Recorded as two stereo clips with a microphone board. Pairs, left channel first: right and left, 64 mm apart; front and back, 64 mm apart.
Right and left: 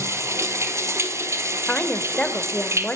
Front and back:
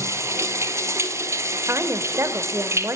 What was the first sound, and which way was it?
Running water, 135° left.